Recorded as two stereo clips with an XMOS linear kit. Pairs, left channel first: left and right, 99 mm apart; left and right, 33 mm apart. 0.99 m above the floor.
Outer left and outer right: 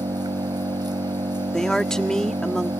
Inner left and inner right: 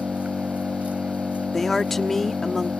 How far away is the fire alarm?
No fire alarm in this recording.